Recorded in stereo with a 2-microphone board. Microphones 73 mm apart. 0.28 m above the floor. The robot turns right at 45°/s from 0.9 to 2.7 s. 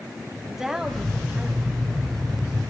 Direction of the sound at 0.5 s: 170° right.